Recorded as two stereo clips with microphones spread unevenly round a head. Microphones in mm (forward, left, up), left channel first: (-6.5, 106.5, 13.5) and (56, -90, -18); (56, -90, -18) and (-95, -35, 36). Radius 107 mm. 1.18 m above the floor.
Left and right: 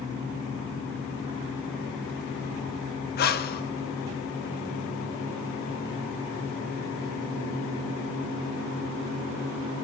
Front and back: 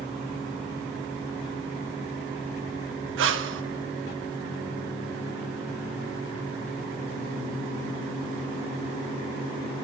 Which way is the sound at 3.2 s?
160° left.